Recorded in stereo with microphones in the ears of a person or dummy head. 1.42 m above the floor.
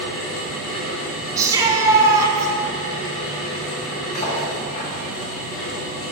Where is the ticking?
No ticking in this recording.